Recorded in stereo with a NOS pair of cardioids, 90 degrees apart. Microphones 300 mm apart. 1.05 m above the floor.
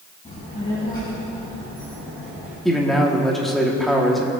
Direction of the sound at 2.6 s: Straight ahead.